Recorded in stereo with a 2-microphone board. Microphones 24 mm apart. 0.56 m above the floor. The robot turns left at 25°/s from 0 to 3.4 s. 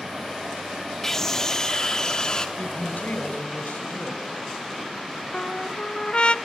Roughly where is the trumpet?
Left.